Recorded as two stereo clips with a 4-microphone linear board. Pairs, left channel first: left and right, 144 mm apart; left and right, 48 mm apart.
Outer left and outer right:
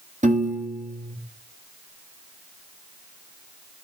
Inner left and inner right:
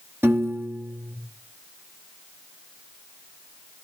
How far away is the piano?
About 1.7 m.